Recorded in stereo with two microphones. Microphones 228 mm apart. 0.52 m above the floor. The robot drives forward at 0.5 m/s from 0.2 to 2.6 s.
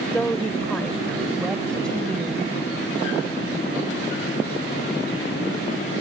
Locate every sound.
0.1 s a woman speaking: 5° left (ahead or behind)